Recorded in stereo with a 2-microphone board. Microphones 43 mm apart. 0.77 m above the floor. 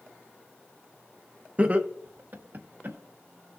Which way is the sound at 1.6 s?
25° right (ahead or behind).